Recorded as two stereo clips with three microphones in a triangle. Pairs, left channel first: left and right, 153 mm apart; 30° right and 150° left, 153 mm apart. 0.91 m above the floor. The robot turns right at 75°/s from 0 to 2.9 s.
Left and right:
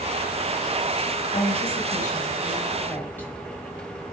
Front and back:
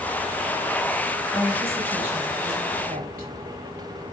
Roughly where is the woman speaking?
Ahead left.